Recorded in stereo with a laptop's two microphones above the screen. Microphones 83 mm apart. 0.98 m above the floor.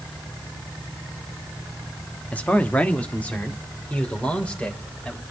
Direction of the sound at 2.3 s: 20° left (ahead or behind).